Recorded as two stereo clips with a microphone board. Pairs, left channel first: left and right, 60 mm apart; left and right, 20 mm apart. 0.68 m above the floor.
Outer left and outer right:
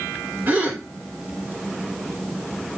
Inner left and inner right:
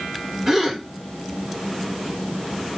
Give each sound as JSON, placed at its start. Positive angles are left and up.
{"t": 0.5, "sound": "a gasp", "side_deg": -30, "distance_m": 2.5}